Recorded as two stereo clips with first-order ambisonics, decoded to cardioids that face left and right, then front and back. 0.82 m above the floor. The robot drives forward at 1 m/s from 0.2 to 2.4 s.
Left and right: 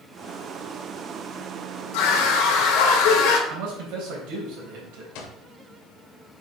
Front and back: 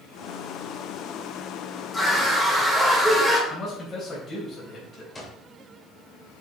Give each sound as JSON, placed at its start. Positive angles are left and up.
{"t": 1.9, "sound": "a scream", "azimuth_deg": 85, "distance_m": 2.5}
{"t": 3.5, "sound": "a man speaking", "azimuth_deg": -70, "distance_m": 3.5}
{"t": 5.2, "sound": "an alarm clock", "azimuth_deg": 80, "distance_m": 1.9}